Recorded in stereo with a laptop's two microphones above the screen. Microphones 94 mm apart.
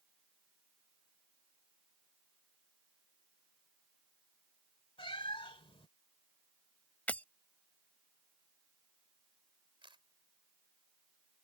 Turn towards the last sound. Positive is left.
turn(degrees=-65)  # may be behind; listen again after turning